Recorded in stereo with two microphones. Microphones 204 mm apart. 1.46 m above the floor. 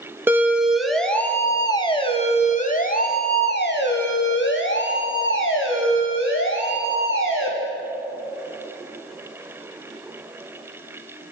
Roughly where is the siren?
Centre.